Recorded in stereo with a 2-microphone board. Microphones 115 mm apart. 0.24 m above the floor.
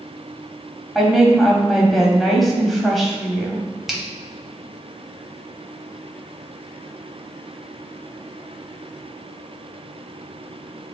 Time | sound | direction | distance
0.9 | a woman speaking | centre (ahead or behind) | 1.3 m
3.9 | a finger snap | 5° right (ahead or behind) | 1.0 m